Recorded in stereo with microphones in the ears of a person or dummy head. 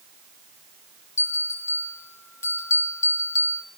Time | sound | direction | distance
1.2 | a bell | 15° left (ahead or behind) | 4.5 m